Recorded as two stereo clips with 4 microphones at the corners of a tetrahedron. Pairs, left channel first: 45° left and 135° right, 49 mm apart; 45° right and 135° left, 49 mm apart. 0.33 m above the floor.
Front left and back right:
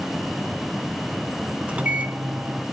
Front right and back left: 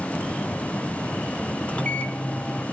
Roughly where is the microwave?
Right.